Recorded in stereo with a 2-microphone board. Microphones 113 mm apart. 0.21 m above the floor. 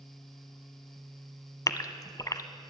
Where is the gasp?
30° left (ahead or behind), 0.7 m.